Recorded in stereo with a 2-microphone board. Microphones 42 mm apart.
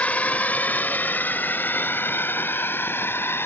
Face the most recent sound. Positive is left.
turn(degrees=65)  # may be behind; listen again after turning